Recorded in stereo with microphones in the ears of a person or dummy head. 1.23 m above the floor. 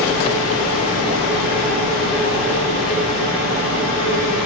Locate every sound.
0.0 s a machine running: 80° left, 5.5 m